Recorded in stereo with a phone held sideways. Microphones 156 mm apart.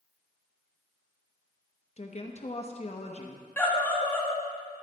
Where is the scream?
15° left (ahead or behind), 1.5 m.